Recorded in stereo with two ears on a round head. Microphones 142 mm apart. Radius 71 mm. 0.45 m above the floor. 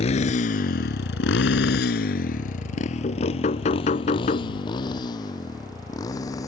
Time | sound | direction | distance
0.0 | a motorcycle | 40° left (ahead or behind) | ?
3.0 | knocking | 45° left (ahead or behind) | ?